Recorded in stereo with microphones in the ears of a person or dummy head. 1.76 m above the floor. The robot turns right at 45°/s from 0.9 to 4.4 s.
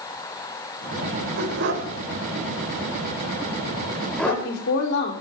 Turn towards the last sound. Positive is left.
turn(degrees=75)  # may be behind; listen again after turning